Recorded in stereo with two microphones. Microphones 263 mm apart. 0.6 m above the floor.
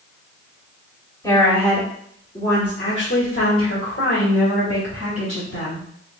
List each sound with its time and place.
1.2 s a woman speaking: 10° left (ahead or behind), 1.8 m; by 5.9 s 70° left (ahead or behind), 3 m